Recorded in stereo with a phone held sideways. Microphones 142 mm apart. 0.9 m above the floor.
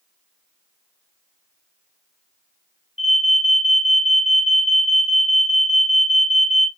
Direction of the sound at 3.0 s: 45° left (ahead or behind).